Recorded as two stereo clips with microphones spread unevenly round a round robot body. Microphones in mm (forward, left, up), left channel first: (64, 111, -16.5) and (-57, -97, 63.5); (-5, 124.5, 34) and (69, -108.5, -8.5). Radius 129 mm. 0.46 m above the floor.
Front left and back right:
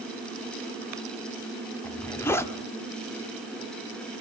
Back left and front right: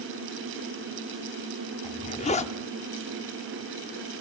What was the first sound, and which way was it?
A zipper, 55° left.